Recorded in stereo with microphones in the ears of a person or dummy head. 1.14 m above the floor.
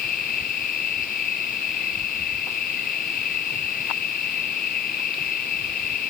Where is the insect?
45° left (ahead or behind).